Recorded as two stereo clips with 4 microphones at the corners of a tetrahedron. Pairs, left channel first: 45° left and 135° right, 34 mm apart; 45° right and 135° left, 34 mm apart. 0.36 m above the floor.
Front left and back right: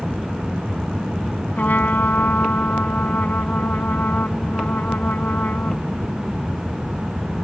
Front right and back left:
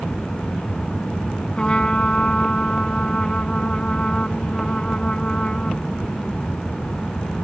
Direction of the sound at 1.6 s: 15° left.